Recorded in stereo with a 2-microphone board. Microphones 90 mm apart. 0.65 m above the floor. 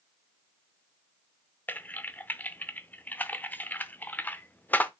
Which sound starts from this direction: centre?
Typing on a keyboard, at 1.7 s.